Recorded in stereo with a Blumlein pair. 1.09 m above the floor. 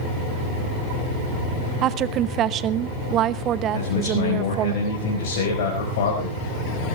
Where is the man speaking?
55° left, 4.5 m.